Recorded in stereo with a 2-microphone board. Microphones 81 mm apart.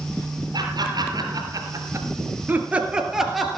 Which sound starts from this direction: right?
Laughter, at 0.5 s.